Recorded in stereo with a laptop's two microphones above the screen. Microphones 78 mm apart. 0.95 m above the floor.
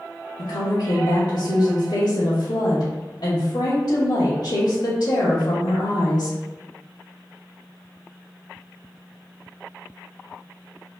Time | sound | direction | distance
0.4 | a woman speaking | 65° left (ahead or behind) | 0.9 m